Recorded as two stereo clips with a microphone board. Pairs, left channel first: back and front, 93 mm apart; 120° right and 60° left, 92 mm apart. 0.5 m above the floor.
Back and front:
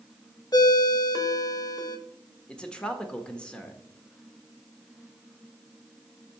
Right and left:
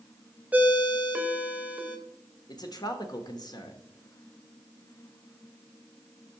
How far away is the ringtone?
About 0.9 m.